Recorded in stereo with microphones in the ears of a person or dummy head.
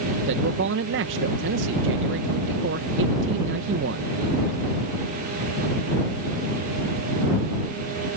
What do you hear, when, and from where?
0.3 s a man speaking: 60° right (ahead or behind)